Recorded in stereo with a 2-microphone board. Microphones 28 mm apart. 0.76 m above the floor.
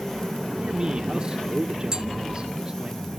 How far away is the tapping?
About 1.9 m.